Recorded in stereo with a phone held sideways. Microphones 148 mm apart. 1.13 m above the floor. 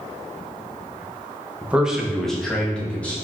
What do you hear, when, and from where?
1.6 s a man speaking: 10° right (ahead or behind), 0.5 m; by 3.1 s 10° left (ahead or behind), 1.4 m